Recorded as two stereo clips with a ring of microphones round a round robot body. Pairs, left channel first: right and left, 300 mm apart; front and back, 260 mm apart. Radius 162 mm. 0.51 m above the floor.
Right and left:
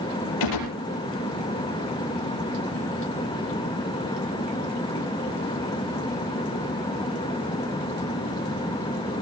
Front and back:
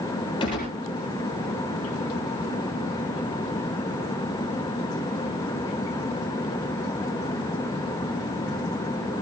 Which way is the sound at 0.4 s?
75° right.